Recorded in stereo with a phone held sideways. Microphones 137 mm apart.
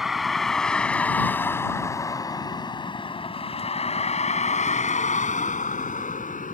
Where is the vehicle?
Centre (ahead or behind); by 6.5 s 80° left.